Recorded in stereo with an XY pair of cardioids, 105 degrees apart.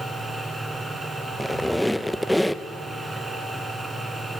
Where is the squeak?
5° left, 0.9 m.